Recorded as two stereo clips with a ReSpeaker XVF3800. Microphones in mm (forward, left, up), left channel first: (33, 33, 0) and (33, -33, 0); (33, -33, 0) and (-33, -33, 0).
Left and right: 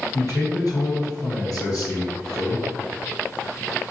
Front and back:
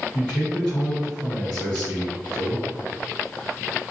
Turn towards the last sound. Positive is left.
turn(degrees=95)